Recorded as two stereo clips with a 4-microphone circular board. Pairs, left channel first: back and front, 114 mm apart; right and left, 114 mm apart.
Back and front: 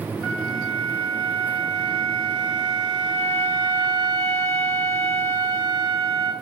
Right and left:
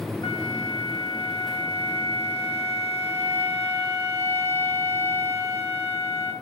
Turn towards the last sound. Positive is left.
turn(degrees=-100)